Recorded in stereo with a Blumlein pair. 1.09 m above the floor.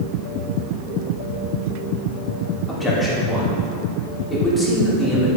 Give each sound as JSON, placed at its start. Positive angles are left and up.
{"t": 2.7, "sound": "a man speaking", "azimuth_deg": 5, "distance_m": 3.5}